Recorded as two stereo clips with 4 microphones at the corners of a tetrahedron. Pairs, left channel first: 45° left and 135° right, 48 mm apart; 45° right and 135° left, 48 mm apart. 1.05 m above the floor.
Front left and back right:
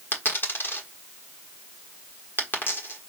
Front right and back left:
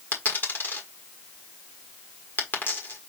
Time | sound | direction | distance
0.1 | a dropped coin | straight ahead | 1.4 m